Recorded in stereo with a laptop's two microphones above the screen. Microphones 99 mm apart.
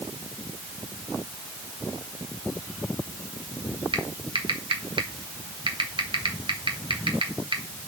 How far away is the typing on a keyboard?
About 1.4 m.